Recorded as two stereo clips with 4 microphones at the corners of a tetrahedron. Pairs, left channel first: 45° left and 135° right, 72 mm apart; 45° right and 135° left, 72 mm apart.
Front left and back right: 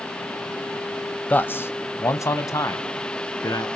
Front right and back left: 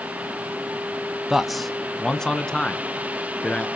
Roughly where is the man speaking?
Ahead left.